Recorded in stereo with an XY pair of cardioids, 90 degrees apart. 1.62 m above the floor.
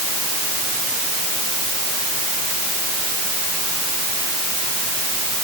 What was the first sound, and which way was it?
Only background noise.